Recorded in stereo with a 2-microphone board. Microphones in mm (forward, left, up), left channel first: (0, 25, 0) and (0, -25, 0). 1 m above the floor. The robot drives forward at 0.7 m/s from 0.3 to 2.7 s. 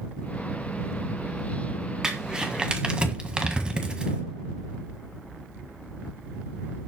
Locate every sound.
2.0 s crumpling: 15° right (ahead or behind), 1.9 m; by 4.2 s 20° right (ahead or behind), 1.6 m